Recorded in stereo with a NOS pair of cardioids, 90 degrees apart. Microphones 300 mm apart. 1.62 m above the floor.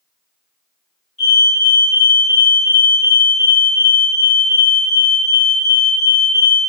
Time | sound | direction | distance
1.2 | a fire alarm | 25° left | 1.5 m